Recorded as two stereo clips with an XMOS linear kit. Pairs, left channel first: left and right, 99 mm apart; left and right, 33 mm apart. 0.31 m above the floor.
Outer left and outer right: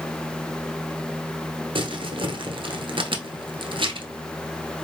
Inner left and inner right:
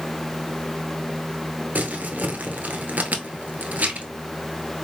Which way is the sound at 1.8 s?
55° right (ahead or behind).